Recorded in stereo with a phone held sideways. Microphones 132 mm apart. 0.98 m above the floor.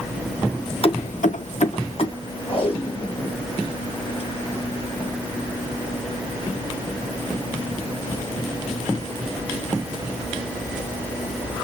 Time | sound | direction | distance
0.8 | keys jangling | 45° left (ahead or behind) | 0.9 m
2.5 | tape being pulled | 45° left (ahead or behind) | 4 m